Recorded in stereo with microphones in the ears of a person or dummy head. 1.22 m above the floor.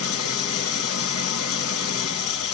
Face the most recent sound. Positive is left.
turn(degrees=70)  # may be behind; listen again after turning